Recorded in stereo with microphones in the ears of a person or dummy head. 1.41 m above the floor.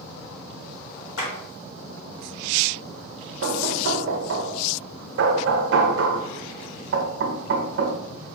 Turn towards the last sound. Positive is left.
turn(degrees=-70)  # may be behind; listen again after turning